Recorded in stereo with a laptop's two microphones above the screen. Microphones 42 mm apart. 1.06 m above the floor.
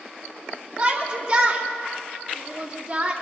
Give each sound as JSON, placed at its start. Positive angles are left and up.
{"t": 0.8, "sound": "a shout", "side_deg": -25, "distance_m": 2.5}